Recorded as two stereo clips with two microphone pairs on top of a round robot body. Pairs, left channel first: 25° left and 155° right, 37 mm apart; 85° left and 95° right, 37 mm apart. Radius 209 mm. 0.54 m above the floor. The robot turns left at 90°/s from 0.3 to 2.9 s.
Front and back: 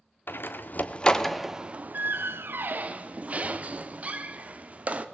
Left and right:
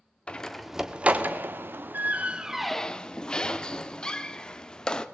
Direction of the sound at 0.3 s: 25° left.